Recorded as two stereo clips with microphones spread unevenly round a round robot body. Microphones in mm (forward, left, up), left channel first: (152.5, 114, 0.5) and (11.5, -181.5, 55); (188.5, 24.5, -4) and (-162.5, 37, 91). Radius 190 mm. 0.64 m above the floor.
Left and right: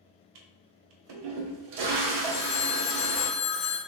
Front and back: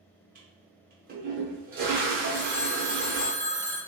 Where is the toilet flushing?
115° right, 0.6 m.